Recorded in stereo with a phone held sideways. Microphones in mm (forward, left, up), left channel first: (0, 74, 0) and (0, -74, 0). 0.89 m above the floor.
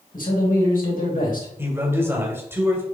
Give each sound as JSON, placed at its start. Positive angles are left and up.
{"t": 0.1, "sound": "a man speaking", "side_deg": 75, "distance_m": 3.0}
{"t": 1.6, "sound": "a man speaking", "side_deg": -15, "distance_m": 2.5}